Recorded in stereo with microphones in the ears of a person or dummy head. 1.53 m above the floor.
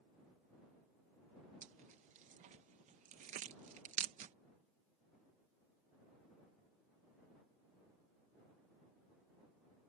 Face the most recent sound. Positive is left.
turn(degrees=-40)  # may be behind; listen again after turning